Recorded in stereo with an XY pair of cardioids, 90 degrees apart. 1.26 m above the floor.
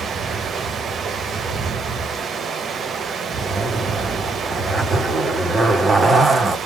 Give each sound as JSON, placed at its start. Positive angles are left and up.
{"t": 0.0, "sound": "running water", "azimuth_deg": -60, "distance_m": 1.0}
{"t": 3.4, "sound": "a zipper", "azimuth_deg": -40, "distance_m": 2.0}